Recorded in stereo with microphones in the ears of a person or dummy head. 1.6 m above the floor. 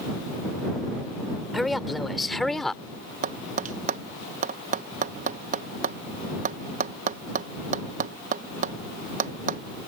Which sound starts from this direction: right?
Tapping, at 3.2 s.